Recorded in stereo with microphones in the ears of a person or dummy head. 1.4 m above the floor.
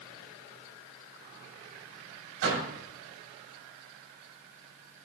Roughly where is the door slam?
Right.